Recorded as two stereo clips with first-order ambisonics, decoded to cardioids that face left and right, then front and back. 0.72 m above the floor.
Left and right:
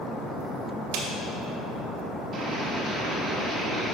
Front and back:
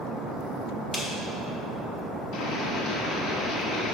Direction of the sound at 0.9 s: 75° right.